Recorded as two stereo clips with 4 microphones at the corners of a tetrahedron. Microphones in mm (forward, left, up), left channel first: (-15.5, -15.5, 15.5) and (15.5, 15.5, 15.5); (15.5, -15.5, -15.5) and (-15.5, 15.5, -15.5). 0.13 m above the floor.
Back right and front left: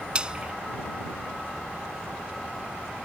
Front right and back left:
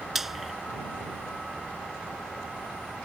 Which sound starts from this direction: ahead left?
Frying, at 0.1 s.